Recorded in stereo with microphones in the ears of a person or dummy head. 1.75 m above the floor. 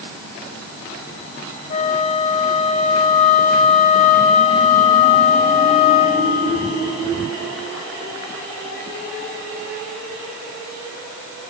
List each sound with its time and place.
1.7 s a flute: 45° left (ahead or behind), 1.5 m